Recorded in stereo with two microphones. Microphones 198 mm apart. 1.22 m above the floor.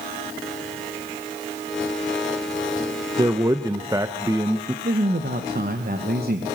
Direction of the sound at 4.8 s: 50° right (ahead or behind).